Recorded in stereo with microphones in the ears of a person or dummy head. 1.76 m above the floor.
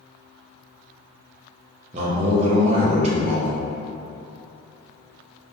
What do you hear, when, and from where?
1.9 s a man speaking: 35° right (ahead or behind), 0.9 m